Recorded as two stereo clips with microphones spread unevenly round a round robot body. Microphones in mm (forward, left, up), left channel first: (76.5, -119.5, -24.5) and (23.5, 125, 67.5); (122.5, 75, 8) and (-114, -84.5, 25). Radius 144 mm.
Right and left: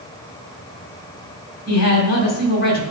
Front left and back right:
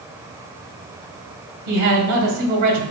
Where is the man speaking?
120° right, 2 m.